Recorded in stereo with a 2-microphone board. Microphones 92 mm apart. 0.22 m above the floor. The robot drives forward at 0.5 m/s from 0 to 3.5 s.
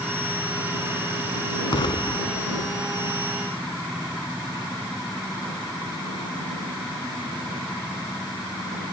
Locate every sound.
1.7 s an explosion: 60° left (ahead or behind); by 3.1 s 50° left (ahead or behind)